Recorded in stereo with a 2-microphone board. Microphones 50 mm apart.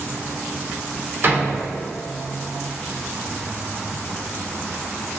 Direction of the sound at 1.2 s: 50° right (ahead or behind).